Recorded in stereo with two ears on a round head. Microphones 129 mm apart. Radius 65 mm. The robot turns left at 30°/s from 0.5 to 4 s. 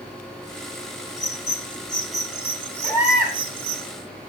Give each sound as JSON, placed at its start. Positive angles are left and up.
{"t": 1.2, "sound": "a bird", "side_deg": 25, "distance_m": 1.2}
{"t": 2.8, "sound": "a baby crying", "side_deg": 15, "distance_m": 5.5}